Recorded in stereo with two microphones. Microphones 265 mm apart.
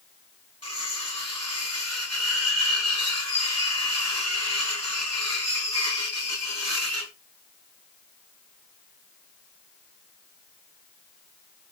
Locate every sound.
0.6 s cutlery clinking: 60° right (ahead or behind), 4 m